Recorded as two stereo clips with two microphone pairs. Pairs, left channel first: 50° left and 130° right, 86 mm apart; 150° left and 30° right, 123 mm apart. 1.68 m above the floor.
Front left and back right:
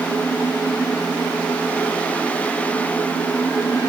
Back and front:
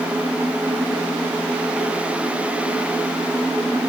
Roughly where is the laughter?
I don't hear laughter.